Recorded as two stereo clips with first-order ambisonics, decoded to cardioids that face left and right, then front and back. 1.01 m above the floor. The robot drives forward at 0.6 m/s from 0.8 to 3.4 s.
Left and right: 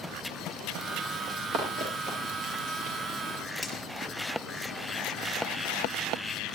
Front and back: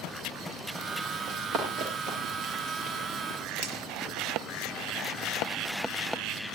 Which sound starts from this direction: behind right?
Running footsteps, at 1.3 s.